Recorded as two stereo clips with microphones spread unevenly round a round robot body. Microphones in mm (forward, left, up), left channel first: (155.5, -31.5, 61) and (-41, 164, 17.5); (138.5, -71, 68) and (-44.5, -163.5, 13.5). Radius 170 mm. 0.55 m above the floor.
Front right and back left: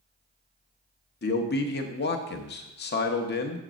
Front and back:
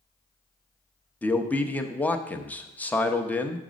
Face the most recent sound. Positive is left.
turn(degrees=-75)